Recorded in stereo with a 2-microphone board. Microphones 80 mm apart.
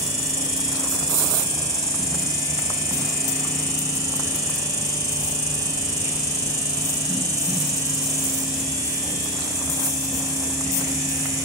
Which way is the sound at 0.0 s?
45° right (ahead or behind).